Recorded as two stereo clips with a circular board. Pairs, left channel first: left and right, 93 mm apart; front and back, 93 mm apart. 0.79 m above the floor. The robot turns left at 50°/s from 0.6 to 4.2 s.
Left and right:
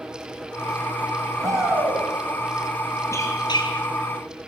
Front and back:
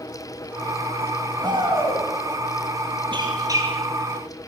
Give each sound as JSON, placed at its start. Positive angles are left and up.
{"t": 1.4, "sound": "a shout", "azimuth_deg": -140, "distance_m": 6.5}
{"t": 3.1, "sound": "a squeak", "azimuth_deg": 145, "distance_m": 8.5}